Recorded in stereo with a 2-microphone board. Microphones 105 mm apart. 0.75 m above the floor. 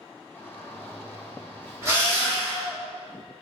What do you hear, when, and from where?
0.3 s a shout: 20° left (ahead or behind), 0.8 m
1.8 s a drill: 25° right (ahead or behind), 1.9 m